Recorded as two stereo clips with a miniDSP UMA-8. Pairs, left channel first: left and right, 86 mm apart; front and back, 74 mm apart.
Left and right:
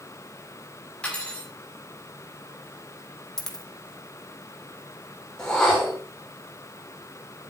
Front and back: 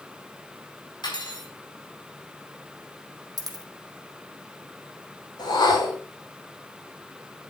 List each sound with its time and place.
1.0 s cutlery clinking: 10° left, 5.5 m
3.4 s a dropped coin: 175° left, 2.5 m
5.4 s a whoosh: 5° left, 5 m